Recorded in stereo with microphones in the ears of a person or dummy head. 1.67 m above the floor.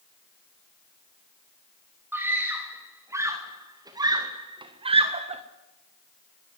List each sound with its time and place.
2.1 s a scream: 15° right (ahead or behind), 3 m; by 5.4 s 30° right (ahead or behind), 1.4 m